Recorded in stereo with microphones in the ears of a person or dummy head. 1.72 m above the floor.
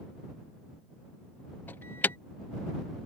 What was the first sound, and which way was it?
An alarm, 10° left (ahead or behind).